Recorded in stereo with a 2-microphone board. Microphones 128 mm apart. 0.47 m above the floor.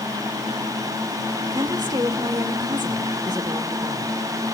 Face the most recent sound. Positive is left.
turn(degrees=-35)  # may be behind; listen again after turning